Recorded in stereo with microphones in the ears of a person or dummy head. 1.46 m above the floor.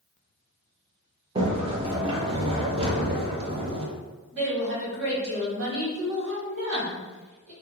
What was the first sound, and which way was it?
A sliding door, 35° right (ahead or behind).